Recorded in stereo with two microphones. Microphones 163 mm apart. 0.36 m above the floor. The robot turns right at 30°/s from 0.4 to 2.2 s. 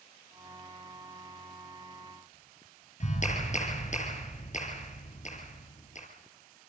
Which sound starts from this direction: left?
A clap, at 3.0 s.